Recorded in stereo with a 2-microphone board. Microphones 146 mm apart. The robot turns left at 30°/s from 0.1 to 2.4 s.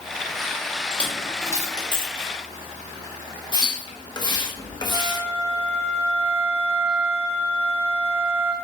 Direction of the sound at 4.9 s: 15° right (ahead or behind).